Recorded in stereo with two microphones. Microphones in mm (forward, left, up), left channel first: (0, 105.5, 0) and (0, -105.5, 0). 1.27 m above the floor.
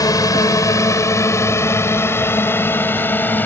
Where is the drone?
15° left (ahead or behind); by 3.5 s 10° left (ahead or behind).